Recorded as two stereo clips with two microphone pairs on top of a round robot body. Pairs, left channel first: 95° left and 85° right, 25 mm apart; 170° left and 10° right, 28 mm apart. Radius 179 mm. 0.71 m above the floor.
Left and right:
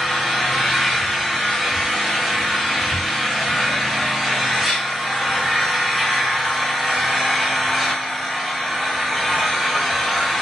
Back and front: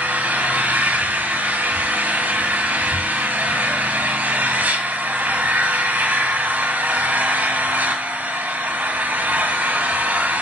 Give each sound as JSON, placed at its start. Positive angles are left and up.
{"t": 0.0, "sound": "an engine running", "azimuth_deg": 0, "distance_m": 8.0}